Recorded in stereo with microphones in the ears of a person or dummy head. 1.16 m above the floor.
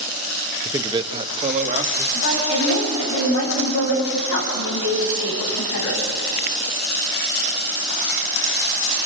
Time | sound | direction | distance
0.7 | a man speaking | 10° right (ahead or behind) | 0.8 m
2.1 | a woman speaking | 65° left (ahead or behind) | 9.5 m